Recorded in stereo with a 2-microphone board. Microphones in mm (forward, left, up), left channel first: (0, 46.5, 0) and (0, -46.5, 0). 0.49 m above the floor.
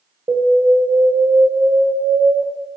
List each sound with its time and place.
0.3 s an alarm: 65° right (ahead or behind), 0.9 m